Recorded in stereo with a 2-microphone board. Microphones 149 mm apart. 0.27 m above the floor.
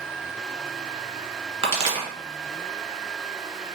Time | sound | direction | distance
1.6 | a pop | 40° right (ahead or behind) | 1.1 m